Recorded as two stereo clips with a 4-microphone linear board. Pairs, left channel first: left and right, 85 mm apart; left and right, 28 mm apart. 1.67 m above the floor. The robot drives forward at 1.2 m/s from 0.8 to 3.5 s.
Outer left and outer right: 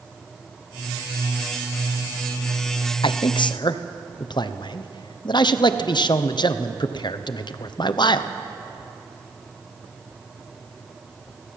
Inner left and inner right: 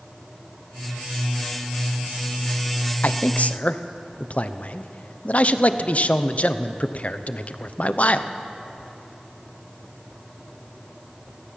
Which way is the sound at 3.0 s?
80° left.